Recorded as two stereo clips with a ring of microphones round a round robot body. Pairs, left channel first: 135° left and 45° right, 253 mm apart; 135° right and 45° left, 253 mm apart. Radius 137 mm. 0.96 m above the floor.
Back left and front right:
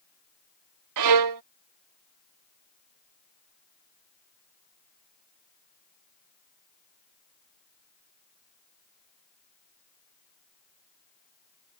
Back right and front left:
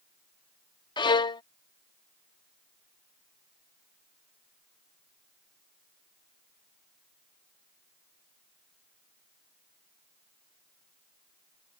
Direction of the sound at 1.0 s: 60° right.